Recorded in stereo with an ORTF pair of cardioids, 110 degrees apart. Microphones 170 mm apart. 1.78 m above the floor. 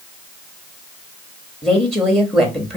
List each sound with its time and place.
1.6 s a woman speaking: 5° left, 0.9 m